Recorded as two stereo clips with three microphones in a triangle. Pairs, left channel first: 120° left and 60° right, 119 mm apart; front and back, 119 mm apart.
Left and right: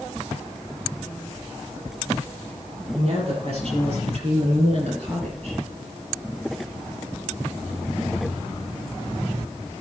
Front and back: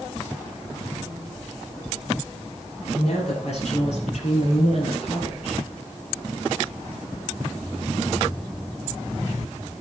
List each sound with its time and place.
2.9 s a woman speaking: 25° right, 7 m; by 5.6 s 30° right, 5 m